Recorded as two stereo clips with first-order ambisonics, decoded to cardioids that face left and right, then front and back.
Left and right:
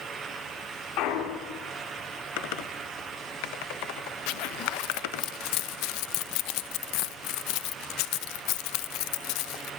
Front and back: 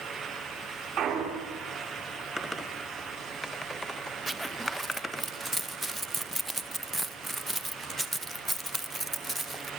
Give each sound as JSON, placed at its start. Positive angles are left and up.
{"t": 1.0, "sound": "a clunk", "azimuth_deg": 125, "distance_m": 4.0}
{"t": 2.4, "sound": "typing on a keyboard", "azimuth_deg": 85, "distance_m": 1.3}
{"t": 4.3, "sound": "a zipper", "azimuth_deg": 95, "distance_m": 0.7}